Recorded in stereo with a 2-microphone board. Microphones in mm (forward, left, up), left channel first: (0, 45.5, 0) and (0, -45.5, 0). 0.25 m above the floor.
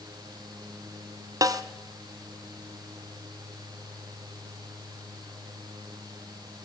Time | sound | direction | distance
1.4 | a snare drum | 40° right (ahead or behind) | 1.0 m